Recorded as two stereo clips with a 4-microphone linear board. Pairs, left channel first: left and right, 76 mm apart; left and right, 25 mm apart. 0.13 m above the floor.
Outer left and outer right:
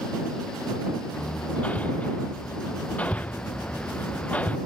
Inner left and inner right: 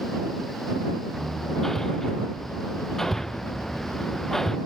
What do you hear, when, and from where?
1.1 s hammering: 20° left (ahead or behind)